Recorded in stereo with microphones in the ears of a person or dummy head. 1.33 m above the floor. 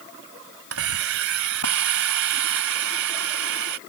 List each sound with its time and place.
0.7 s a hiss: 85° right